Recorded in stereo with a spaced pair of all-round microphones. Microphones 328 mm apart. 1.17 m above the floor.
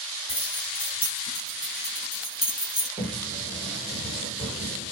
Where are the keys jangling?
15° right (ahead or behind), 6 m; by 2.9 s 10° right (ahead or behind), 7.5 m.